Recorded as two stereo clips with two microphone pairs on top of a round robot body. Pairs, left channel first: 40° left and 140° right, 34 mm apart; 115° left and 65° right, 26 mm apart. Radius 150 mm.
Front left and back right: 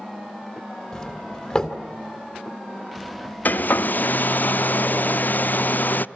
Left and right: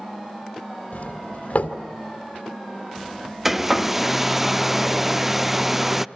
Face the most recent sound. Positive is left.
turn(degrees=15)